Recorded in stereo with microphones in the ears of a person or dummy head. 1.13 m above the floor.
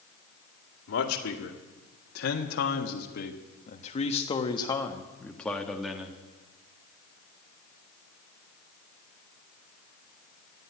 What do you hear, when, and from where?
0.9 s a man speaking: 85° left, 2 m; by 6.2 s 5° right (ahead or behind), 1.7 m